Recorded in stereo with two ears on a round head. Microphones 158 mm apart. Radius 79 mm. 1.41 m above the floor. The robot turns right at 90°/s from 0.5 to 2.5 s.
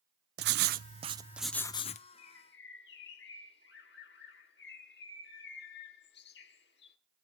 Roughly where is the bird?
Left.